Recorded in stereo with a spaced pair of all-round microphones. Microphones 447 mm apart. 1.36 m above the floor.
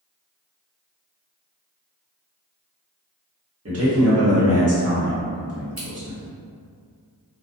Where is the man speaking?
35° right (ahead or behind), 0.9 m.